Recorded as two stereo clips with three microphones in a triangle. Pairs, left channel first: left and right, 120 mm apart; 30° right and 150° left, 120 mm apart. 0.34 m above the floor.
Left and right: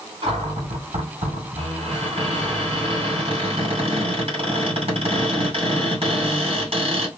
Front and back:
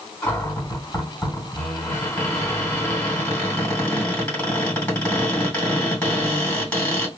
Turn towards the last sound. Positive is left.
turn(degrees=-105)